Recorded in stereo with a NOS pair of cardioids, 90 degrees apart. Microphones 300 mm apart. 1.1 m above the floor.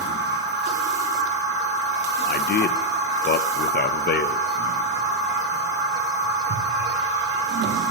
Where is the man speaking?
35° left, 0.6 m.